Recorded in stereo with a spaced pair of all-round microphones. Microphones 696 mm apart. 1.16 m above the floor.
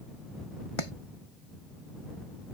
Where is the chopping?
45° left (ahead or behind).